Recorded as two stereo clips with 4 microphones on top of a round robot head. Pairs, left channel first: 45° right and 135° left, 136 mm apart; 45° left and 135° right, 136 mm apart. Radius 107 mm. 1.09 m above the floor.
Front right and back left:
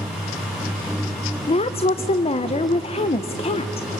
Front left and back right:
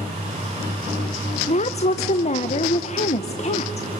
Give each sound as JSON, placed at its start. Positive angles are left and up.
{"t": 1.5, "sound": "a woman speaking", "azimuth_deg": 5, "distance_m": 0.6}